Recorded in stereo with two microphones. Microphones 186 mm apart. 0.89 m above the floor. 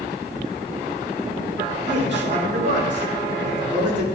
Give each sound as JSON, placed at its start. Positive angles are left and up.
{"t": 1.9, "sound": "a man speaking", "side_deg": -70, "distance_m": 2.5}